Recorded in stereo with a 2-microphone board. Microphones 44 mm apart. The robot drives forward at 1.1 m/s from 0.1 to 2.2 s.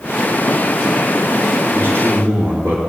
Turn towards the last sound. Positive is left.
turn(degrees=-70)  # may be behind; listen again after turning